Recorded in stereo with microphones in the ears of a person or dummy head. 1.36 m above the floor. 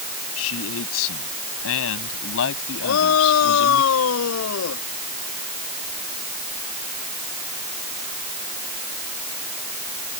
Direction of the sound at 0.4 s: 80° left.